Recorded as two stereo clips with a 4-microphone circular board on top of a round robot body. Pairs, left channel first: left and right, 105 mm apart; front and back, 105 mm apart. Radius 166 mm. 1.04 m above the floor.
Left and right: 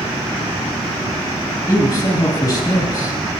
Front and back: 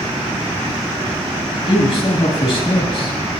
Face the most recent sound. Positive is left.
turn(degrees=35)